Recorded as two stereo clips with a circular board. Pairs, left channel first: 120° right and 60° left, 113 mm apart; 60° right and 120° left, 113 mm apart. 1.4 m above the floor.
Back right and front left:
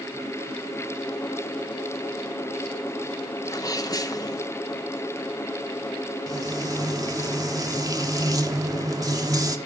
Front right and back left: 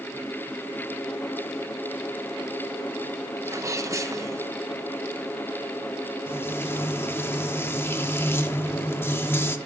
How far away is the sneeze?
About 1.1 m.